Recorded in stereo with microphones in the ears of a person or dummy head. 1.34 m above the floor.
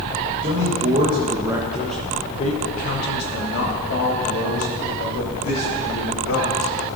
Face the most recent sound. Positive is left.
turn(degrees=85)